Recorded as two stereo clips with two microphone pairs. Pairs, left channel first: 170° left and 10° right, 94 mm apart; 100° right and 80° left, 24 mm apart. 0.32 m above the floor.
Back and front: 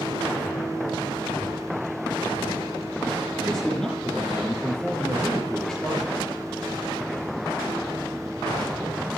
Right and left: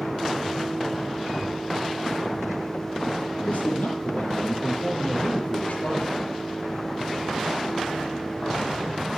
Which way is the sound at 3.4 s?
105° right.